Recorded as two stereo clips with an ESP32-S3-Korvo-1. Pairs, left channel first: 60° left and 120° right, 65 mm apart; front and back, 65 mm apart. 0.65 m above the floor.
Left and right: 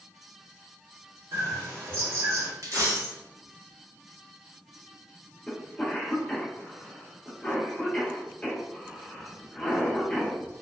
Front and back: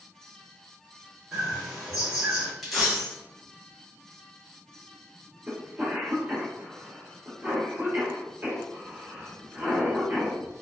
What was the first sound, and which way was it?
A bird, 105° right.